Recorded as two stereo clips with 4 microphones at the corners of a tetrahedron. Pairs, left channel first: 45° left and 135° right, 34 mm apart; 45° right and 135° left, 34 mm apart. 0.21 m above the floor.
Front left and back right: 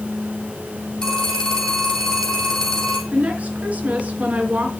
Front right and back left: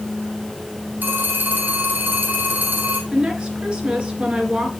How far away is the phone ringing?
About 6 m.